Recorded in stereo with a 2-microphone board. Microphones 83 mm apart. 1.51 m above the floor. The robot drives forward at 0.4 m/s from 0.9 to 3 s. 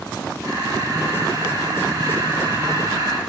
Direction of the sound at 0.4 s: 40° right (ahead or behind).